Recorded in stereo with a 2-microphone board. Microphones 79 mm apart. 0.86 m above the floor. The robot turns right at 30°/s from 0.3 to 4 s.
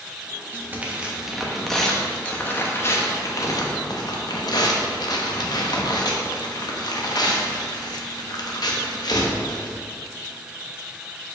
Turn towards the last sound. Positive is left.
turn(degrees=75)